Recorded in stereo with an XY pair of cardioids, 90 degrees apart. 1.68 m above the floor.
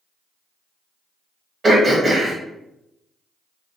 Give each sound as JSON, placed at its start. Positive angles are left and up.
{"t": 1.6, "sound": "throat clearing", "azimuth_deg": -40, "distance_m": 1.2}